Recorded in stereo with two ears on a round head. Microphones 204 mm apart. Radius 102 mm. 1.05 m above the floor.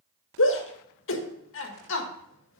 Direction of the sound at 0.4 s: 60° left (ahead or behind).